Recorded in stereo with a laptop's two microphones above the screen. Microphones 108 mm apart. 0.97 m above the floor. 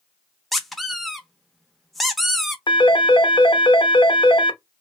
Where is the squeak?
Centre (ahead or behind), 0.7 m.